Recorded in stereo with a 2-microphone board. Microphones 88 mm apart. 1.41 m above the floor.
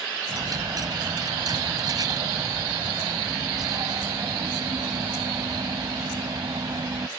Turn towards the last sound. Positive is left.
turn(degrees=-45)  # may be behind; listen again after turning